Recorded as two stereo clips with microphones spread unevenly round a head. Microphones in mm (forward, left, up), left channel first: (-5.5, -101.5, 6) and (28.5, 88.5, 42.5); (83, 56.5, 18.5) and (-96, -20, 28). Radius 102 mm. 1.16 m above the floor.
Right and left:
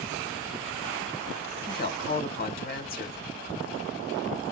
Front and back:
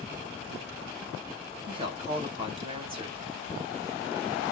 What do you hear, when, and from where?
1.7 s a woman speaking: 95° right, 1.1 m